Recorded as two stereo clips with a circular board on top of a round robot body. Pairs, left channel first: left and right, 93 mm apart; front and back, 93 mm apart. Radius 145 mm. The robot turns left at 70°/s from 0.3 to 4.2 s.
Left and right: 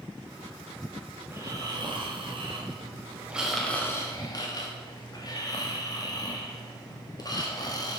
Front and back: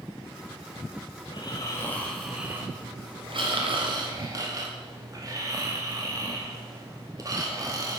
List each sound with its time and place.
1.2 s snoring: 20° right, 2.0 m; by 8.0 s 130° left, 2.0 m